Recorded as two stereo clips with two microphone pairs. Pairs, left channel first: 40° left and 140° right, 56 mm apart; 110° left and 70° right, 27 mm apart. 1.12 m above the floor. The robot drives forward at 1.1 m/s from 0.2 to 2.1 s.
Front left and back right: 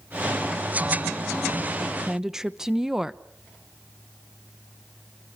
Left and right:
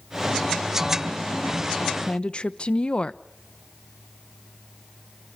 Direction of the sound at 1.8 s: 115° left.